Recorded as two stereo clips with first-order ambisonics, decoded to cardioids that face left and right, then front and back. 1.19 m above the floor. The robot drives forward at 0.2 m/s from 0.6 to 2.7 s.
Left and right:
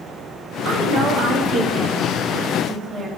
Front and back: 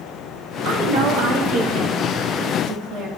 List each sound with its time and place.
0.7 s a woman speaking: 140° right, 1.2 m; by 3.1 s 150° right, 1.5 m